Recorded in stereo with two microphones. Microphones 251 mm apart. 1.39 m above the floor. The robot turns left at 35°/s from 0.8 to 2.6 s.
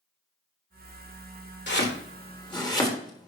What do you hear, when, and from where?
1.7 s chopping: 45° left (ahead or behind), 1.4 m; by 3.3 s 15° left (ahead or behind), 1.4 m